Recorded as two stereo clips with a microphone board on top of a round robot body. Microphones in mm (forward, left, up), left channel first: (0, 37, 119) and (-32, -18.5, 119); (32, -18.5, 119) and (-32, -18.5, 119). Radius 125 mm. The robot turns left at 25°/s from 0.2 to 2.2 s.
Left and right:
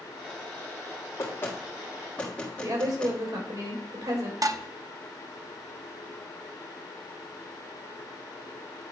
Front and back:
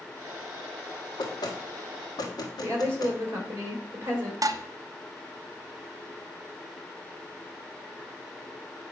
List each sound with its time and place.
1.2 s knocking: 10° left, 1.7 m; by 3.2 s 15° right, 1.7 m
2.6 s a woman speaking: 125° right, 3 m
4.4 s dishes clattering: 150° right, 0.7 m